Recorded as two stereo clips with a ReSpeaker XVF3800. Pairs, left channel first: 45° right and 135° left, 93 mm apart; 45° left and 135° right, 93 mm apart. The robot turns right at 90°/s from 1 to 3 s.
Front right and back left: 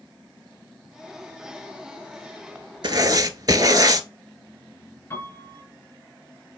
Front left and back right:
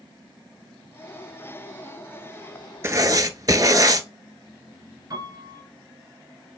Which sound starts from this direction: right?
A piano, at 5.1 s.